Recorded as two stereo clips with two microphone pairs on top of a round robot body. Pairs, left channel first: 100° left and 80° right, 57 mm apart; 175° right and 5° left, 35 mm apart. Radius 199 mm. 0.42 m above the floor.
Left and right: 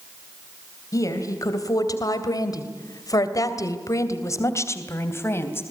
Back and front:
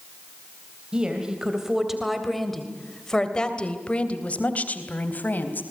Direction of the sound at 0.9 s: 75° left.